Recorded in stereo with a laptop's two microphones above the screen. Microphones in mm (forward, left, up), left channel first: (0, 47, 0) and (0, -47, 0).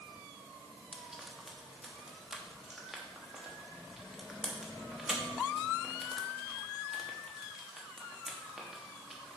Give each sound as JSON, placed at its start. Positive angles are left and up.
{"t": 0.9, "sound": "frying", "side_deg": -5, "distance_m": 0.8}